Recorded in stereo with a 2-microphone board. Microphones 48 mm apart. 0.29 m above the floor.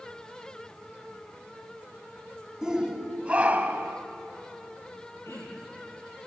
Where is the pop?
No pop in this recording.